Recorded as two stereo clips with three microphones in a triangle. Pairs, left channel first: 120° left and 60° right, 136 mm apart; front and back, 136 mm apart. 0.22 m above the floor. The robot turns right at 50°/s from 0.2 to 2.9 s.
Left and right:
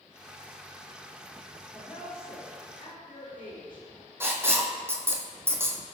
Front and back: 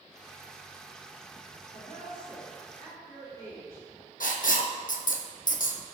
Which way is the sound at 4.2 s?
10° left.